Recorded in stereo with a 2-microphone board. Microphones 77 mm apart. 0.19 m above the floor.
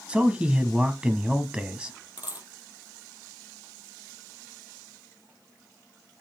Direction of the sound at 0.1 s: 15° right (ahead or behind).